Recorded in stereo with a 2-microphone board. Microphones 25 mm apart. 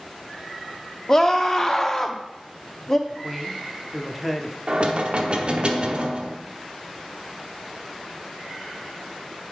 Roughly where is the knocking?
Right.